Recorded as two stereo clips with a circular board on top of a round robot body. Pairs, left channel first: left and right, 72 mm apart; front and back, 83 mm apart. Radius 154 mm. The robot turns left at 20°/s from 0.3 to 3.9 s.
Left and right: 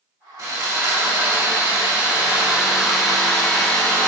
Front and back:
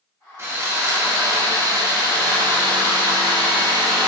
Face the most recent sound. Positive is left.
turn(degrees=165)